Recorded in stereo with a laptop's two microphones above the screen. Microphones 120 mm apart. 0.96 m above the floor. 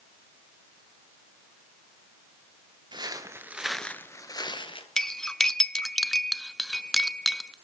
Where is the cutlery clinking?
5° left (ahead or behind), 0.5 m.